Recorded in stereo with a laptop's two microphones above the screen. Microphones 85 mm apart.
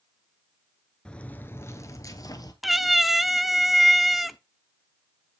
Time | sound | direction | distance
1.1 | footsteps | 10° left (ahead or behind) | 0.9 m
2.6 | a cat meowing | centre (ahead or behind) | 0.6 m